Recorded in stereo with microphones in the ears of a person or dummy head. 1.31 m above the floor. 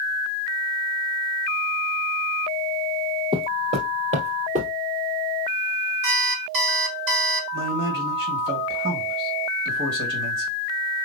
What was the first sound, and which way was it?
Footsteps, 30° right (ahead or behind).